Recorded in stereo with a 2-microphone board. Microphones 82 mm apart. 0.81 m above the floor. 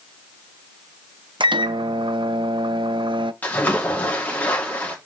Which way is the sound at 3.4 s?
20° left (ahead or behind).